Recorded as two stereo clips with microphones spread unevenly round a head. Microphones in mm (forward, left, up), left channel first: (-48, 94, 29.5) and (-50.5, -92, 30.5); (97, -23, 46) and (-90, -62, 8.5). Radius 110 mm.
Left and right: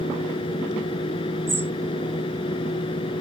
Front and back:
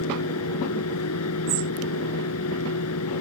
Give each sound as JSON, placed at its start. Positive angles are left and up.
{"t": 0.0, "sound": "a fan", "azimuth_deg": 20}
{"t": 1.5, "sound": "a bird", "azimuth_deg": -165}